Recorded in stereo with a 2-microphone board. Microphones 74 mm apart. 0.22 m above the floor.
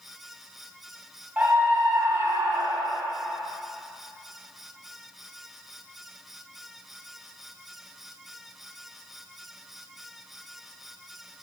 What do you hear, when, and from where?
1.4 s a scream: 20° right (ahead or behind), 1.3 m; by 3.0 s 45° right (ahead or behind), 1.8 m